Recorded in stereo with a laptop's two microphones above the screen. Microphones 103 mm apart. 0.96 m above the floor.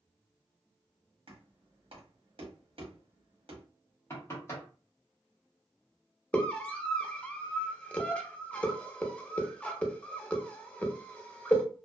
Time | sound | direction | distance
1.3 | knocking | 65° right (ahead or behind) | 0.9 m
4.1 | knocking | 25° left (ahead or behind) | 1.1 m
6.3 | a scream | 15° left (ahead or behind) | 0.9 m